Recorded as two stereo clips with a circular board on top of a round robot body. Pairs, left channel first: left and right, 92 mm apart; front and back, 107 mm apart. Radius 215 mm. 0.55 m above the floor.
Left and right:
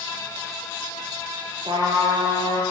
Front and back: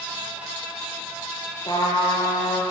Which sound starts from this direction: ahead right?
A trumpet, at 1.6 s.